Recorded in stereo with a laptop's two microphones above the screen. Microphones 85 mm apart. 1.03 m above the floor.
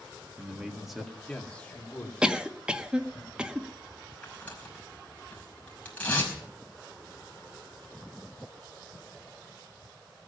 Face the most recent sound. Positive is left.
turn(degrees=15)  # may be behind; listen again after turning